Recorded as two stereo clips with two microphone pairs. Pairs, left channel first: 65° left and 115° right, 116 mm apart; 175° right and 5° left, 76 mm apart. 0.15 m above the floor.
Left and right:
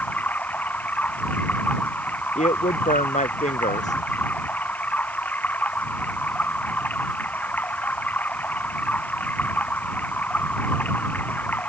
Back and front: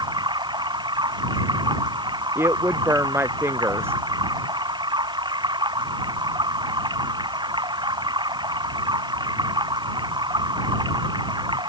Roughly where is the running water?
Ahead.